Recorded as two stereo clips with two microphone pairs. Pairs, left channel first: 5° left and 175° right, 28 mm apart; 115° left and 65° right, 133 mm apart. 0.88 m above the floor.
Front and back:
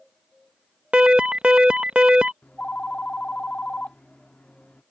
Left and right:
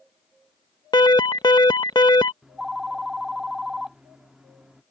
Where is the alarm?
155° left.